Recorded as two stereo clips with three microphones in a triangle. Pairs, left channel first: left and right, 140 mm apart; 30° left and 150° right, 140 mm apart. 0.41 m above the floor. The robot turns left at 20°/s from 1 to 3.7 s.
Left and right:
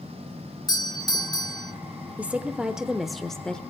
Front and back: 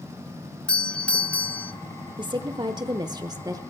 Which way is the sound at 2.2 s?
160° right.